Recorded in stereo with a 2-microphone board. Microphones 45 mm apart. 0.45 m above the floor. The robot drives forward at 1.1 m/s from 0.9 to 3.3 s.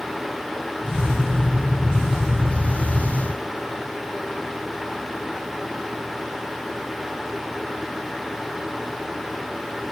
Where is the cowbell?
I don't hear a cowbell.